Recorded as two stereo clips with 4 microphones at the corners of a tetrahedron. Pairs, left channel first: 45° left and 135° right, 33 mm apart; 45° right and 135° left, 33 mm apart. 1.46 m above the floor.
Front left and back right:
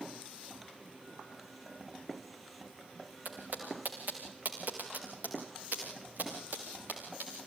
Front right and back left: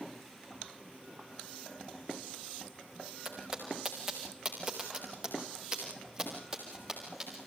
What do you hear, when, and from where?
3.2 s footsteps: 150° right, 4.5 m